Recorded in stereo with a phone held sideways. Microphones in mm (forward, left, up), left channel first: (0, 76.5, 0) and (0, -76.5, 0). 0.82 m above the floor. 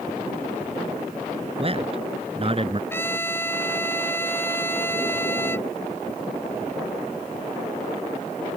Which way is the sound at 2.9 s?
15° left (ahead or behind).